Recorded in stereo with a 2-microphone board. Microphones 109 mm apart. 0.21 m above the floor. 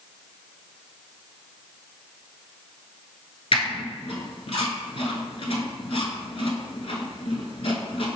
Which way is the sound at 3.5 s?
60° left (ahead or behind).